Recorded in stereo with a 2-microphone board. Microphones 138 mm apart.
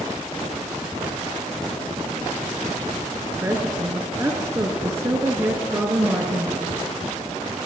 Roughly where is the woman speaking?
Right.